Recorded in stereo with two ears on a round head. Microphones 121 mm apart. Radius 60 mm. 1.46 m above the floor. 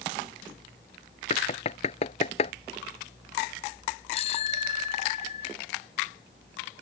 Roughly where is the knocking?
Left.